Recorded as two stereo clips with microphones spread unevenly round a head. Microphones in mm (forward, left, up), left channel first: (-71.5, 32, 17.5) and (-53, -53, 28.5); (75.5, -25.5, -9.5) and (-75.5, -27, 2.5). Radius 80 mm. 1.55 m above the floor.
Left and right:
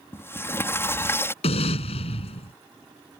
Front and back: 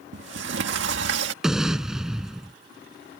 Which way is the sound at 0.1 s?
165° left.